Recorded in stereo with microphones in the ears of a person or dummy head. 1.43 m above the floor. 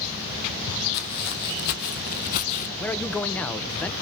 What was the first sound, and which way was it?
Footsteps, 60° left (ahead or behind).